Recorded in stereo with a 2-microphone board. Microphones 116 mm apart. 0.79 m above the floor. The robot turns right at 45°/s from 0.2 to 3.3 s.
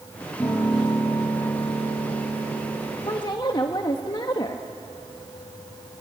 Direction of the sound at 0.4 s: 5° left.